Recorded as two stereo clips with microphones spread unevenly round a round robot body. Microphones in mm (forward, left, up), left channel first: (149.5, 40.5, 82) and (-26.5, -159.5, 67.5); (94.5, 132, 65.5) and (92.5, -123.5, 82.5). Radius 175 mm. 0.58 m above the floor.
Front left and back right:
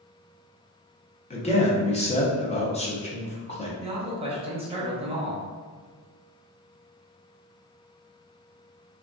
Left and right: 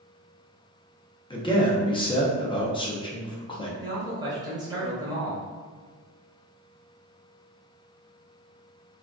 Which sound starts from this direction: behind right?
A man speaking, at 3.8 s.